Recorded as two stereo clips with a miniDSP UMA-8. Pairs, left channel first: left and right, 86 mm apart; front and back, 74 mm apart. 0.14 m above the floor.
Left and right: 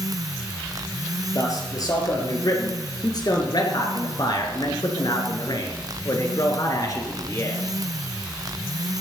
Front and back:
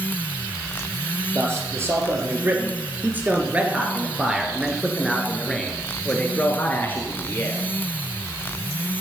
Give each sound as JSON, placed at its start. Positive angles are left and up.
{"t": 1.4, "sound": "a man speaking", "azimuth_deg": 130, "distance_m": 3.5}